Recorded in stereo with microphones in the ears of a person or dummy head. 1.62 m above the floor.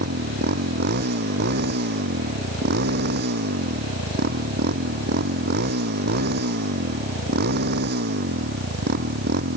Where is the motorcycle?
50° right (ahead or behind).